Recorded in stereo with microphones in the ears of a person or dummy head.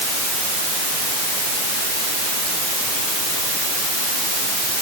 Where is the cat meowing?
No cat meowing in this recording.